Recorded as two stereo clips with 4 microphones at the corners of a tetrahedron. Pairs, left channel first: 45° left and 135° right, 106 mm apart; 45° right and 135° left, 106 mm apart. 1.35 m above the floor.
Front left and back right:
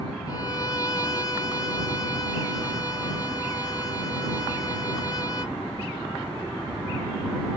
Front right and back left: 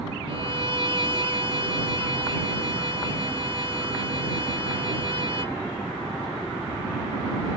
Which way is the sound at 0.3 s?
100° left.